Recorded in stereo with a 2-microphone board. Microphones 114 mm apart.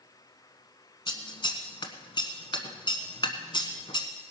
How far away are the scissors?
About 1.2 m.